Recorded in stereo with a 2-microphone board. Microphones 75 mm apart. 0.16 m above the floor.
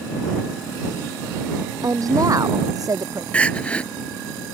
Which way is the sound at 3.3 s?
15° left (ahead or behind).